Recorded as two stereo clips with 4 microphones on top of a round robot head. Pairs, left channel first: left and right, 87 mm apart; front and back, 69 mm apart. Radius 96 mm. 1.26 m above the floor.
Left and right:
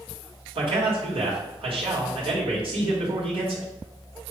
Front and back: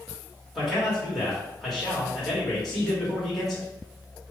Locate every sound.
0.6 s a man speaking: 90° right, 2.0 m